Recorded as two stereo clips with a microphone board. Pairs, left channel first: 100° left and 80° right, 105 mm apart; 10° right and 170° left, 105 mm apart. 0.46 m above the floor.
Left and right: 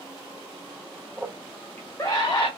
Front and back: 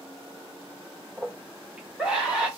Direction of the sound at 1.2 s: 130° right.